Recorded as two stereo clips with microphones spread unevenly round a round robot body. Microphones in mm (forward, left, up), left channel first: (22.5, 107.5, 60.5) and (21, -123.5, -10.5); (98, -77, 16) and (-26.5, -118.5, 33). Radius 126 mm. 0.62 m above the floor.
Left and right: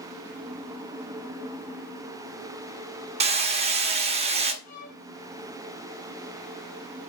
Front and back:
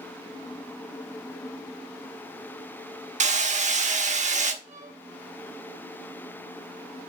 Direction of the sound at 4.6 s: 155° left.